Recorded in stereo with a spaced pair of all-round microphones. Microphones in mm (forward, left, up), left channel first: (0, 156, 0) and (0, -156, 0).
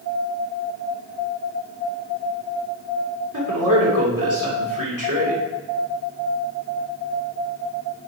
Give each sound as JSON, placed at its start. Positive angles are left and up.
{"t": 3.3, "sound": "a man speaking", "side_deg": -80, "distance_m": 3.0}